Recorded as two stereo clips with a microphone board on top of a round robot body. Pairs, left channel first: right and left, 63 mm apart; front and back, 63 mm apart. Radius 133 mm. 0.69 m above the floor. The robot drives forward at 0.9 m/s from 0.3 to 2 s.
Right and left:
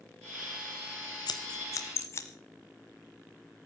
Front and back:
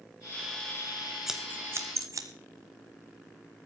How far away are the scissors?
About 0.7 m.